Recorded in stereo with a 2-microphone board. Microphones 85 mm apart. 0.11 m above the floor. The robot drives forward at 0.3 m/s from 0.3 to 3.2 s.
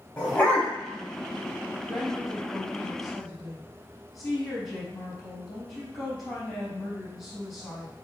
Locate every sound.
0.2 s a dog barking: 15° left (ahead or behind), 3.5 m
1.9 s a woman speaking: 5° left (ahead or behind), 4 m